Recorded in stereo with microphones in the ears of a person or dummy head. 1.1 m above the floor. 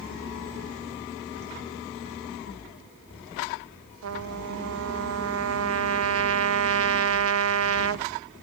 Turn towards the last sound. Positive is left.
turn(degrees=-70)  # may be behind; listen again after turning